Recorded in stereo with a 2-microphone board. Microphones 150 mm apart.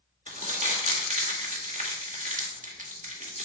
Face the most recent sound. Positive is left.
turn(degrees=-55)  # may be behind; listen again after turning